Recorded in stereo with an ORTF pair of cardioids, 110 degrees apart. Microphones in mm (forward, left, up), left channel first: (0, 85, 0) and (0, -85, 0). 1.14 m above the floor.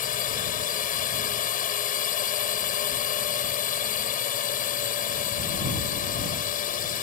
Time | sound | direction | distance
0.0 | a drone | 55° left | ?